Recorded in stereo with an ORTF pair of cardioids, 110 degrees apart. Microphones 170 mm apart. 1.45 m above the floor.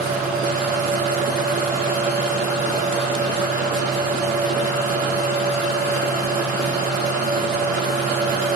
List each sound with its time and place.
0.0 s a fan: 60° right, 2.5 m